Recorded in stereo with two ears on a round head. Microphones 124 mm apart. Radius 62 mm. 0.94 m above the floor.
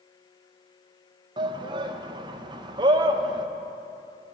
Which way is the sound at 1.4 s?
30° right (ahead or behind).